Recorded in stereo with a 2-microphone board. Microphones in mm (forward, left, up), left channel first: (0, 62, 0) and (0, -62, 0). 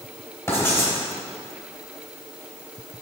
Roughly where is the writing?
Left.